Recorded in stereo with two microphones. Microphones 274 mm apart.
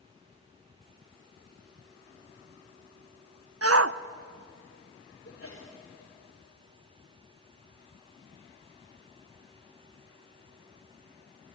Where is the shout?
65° right (ahead or behind), 0.7 m.